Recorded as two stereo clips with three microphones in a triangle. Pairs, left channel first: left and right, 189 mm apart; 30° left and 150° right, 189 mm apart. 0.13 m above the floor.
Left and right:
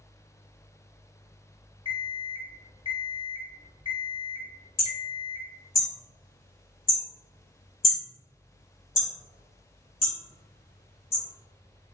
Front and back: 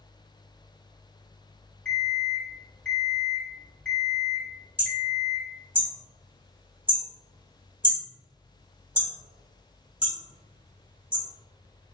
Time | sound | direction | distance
1.9 | an alarm clock | 55° right | 0.9 m
4.8 | hammering | 130° left | 1.4 m